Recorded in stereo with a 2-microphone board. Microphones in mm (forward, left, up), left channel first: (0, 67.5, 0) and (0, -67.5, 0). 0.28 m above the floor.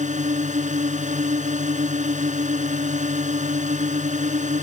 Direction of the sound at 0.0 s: 65° right (ahead or behind).